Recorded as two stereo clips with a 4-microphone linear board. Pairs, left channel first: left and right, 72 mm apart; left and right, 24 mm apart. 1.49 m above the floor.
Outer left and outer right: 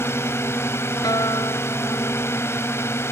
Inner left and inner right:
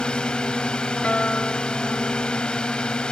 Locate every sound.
0.0 s a drone: 35° left (ahead or behind)
1.0 s a guitar: 65° left (ahead or behind)